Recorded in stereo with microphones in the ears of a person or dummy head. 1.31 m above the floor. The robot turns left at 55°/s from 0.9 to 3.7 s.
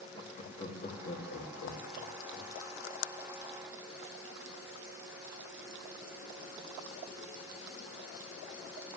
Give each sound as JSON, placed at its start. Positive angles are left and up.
{"t": 0.1, "sound": "laughter", "side_deg": 35, "distance_m": 2.5}